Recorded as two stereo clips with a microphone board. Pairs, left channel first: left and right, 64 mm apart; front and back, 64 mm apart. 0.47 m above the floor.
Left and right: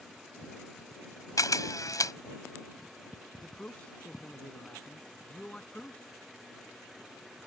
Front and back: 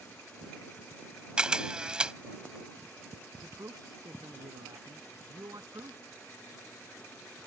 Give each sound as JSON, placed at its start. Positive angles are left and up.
{"t": 1.4, "sound": "a camera shutter", "azimuth_deg": 105}
{"t": 3.4, "sound": "a man speaking", "azimuth_deg": 165}